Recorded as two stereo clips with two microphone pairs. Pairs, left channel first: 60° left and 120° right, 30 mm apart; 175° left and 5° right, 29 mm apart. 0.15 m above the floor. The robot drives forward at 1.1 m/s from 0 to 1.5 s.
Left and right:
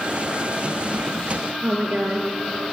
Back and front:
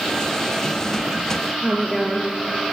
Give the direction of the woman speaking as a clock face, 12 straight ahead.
3 o'clock.